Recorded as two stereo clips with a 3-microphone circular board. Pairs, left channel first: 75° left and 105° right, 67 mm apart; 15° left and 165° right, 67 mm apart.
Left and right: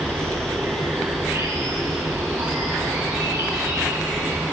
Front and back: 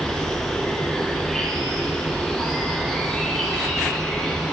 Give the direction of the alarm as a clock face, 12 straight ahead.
I don't hear an alarm.